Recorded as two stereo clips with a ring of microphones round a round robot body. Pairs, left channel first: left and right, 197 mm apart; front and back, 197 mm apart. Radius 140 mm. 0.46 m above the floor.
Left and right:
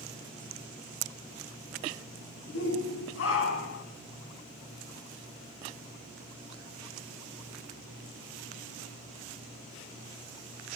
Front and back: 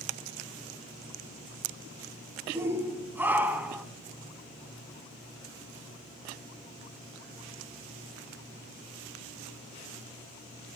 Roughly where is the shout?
Left.